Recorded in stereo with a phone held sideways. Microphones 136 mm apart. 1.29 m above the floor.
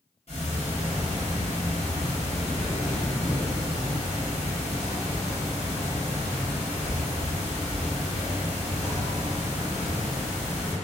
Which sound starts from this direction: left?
Ticking, at 0.3 s.